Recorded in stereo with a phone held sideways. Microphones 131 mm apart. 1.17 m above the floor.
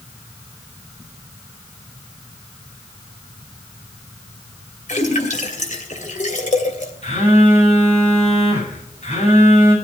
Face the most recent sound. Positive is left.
turn(degrees=60)  # may be behind; listen again after turning